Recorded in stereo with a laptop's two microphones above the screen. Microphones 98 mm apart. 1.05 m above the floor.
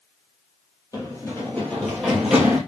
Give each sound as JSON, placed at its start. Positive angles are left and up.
{"t": 0.9, "sound": "running footsteps", "side_deg": 30, "distance_m": 2.0}